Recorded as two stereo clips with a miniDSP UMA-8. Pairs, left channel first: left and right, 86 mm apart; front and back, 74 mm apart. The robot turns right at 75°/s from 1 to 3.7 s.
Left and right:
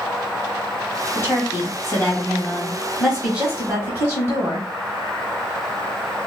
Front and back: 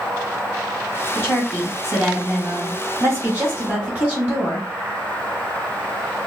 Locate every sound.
1.1 s a woman speaking: 45° left, 1.2 m; by 4.7 s 125° right, 1.2 m